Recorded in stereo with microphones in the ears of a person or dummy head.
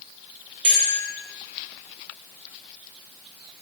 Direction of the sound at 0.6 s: 30° right (ahead or behind).